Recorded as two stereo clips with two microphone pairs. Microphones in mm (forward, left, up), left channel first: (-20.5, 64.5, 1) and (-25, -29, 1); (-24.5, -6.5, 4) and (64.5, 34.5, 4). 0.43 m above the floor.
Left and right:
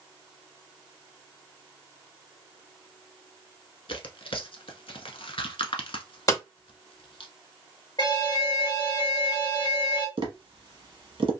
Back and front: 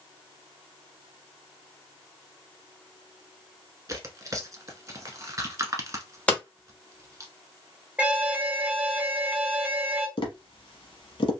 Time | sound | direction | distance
3.9 | tearing paper | 80° left | 0.9 m
6.3 | hammering | 130° left | 1.6 m
8.0 | an alarm | 95° left | 1.3 m
10.2 | tapping | 125° right | 1.1 m